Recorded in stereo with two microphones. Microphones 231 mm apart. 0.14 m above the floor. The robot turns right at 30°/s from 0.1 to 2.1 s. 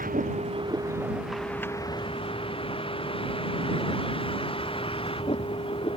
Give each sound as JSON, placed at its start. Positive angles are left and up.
{"t": 0.0, "sound": "a vehicle", "azimuth_deg": -35}